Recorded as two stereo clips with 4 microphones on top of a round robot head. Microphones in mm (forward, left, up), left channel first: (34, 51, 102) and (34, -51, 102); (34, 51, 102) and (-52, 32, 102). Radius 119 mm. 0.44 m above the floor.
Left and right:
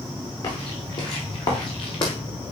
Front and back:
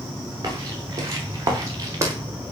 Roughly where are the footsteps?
Behind left.